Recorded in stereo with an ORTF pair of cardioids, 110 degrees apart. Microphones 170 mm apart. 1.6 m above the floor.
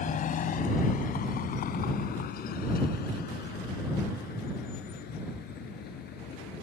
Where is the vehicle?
50° left; by 6.6 s 70° left.